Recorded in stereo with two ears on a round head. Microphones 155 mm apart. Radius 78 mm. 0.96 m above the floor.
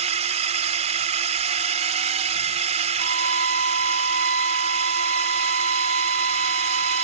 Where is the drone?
40° right (ahead or behind).